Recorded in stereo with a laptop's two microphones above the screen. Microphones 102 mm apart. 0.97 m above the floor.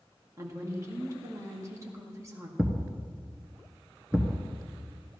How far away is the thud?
About 1.3 m.